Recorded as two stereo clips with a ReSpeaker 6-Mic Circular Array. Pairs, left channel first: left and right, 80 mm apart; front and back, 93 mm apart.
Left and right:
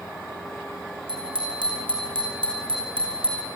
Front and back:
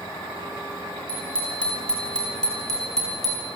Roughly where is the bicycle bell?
Right.